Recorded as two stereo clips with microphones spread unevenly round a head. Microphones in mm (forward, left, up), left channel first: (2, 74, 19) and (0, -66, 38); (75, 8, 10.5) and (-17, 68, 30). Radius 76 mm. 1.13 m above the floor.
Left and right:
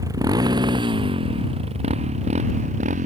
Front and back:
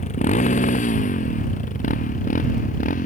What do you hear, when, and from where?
0.0 s a motorcycle: 25° right; by 3.1 s 50° right